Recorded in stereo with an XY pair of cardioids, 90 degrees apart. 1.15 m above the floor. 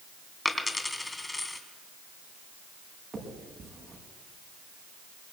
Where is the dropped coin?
20° left, 3 m.